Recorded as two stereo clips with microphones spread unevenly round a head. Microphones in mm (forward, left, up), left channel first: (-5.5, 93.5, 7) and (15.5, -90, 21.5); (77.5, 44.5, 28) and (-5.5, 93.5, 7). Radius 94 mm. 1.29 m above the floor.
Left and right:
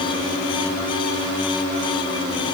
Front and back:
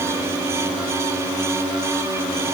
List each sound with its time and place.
Only background noise.